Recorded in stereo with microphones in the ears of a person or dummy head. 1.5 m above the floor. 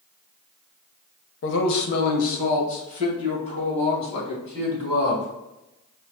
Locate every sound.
1.4 s a man speaking: 70° left (ahead or behind), 0.8 m; by 5.3 s 30° left (ahead or behind), 3.5 m